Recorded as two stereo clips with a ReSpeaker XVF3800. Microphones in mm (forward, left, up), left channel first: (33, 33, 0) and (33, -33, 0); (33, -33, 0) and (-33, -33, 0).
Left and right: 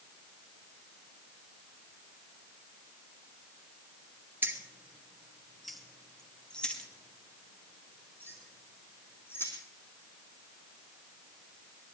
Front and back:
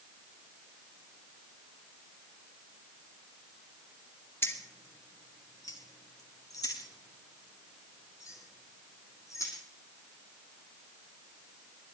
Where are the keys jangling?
40° right, 1.7 m; by 9.5 s 35° left, 4.5 m.